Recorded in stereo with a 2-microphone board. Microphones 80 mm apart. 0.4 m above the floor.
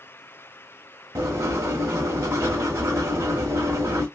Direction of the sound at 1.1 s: 45° right (ahead or behind).